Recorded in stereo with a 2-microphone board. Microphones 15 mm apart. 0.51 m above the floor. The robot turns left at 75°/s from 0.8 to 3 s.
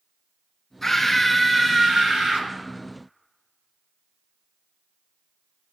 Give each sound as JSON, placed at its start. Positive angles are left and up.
{"t": 0.8, "sound": "a scream", "azimuth_deg": 30, "distance_m": 5.0}